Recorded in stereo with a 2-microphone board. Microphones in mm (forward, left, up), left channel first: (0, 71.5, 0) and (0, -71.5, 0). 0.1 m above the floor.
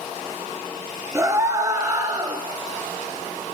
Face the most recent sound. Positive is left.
turn(degrees=-30)  # may be behind; listen again after turning